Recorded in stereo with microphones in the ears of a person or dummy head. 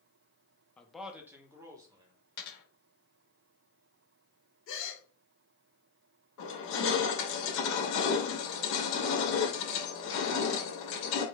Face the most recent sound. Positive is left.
turn(degrees=75)  # may be behind; listen again after turning